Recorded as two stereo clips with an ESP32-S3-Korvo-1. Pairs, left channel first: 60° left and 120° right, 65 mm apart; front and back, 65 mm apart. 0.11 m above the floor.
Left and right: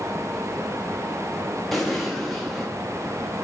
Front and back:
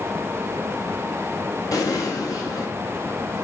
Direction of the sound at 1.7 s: 30° right.